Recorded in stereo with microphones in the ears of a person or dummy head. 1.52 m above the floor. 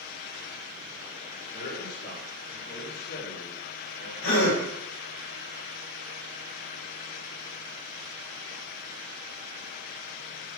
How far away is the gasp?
About 5.5 m.